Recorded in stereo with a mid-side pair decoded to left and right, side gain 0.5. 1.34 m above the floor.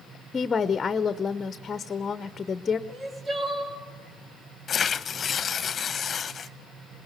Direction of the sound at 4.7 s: 45° left.